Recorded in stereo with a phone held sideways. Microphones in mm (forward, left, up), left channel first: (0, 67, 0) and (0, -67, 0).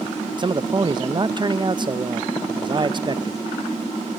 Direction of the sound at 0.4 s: 35° right (ahead or behind).